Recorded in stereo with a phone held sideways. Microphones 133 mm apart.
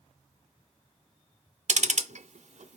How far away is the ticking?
About 0.5 m.